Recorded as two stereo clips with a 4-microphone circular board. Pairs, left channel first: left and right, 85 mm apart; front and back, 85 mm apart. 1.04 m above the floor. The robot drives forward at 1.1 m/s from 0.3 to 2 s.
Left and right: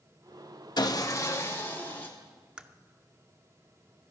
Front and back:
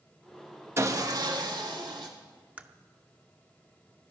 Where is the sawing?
125° left, 1.0 m; by 2.1 s 155° left, 2 m.